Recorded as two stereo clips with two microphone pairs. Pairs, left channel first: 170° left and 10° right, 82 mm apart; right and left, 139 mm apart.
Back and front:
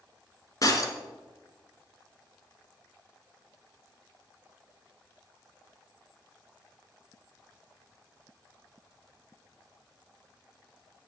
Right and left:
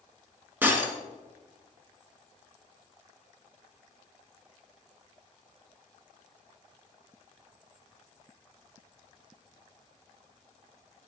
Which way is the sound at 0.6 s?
160° left.